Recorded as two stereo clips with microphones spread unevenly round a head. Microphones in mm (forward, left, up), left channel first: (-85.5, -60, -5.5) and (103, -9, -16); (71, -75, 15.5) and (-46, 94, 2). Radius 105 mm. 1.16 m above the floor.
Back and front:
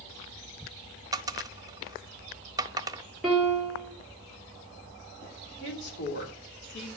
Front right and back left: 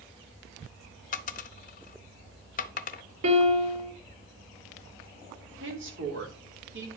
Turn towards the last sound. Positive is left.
turn(degrees=160)